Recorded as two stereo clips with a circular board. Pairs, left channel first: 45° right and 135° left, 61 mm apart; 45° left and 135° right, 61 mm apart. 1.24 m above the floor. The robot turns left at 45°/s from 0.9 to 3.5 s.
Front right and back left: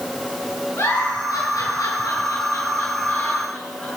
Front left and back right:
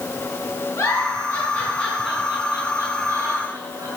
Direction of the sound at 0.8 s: 10° left.